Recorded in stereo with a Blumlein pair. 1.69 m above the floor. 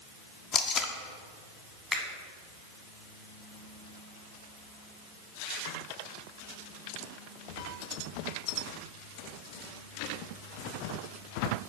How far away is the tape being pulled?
About 0.7 m.